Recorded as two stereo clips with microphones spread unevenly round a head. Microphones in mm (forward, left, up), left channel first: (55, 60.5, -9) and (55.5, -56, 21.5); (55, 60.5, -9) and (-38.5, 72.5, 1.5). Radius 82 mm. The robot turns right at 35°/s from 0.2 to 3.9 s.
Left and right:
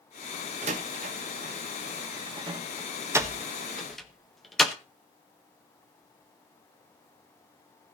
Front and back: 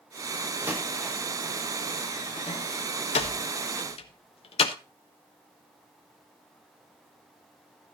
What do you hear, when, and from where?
0.6 s a door slam: 115° right, 1.3 m; by 4.7 s straight ahead, 1.3 m